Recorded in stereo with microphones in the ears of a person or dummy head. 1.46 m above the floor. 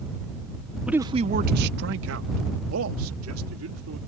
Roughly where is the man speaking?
Centre.